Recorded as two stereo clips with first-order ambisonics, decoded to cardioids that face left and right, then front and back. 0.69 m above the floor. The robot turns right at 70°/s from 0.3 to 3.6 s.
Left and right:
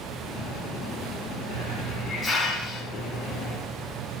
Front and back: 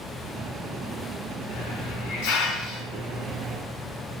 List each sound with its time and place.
1.5 s a hiss: 55° right, 4 m; by 3.6 s 95° left, 4 m